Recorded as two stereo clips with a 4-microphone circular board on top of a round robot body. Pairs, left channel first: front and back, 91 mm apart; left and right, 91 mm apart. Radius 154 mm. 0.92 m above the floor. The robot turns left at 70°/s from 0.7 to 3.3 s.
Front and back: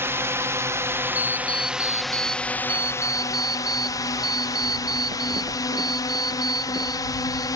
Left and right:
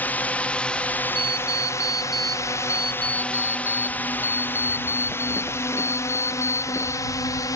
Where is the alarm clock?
55° right; by 7.5 s 155° left.